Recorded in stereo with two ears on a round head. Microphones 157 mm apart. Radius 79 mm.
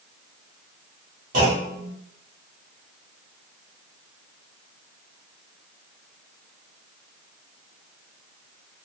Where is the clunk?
50° right (ahead or behind), 1.2 m.